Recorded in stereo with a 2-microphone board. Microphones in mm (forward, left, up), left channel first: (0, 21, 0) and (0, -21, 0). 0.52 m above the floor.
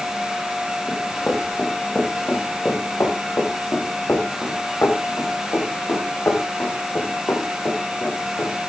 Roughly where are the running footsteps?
Left.